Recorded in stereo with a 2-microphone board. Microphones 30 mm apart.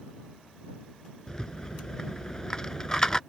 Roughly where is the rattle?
Left.